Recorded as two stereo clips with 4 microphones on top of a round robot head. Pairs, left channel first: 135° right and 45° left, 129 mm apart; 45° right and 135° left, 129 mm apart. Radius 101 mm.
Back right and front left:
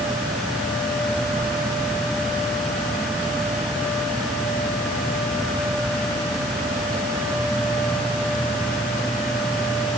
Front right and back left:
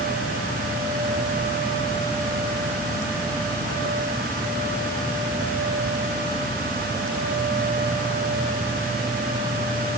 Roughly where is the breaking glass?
No breaking glass in this recording.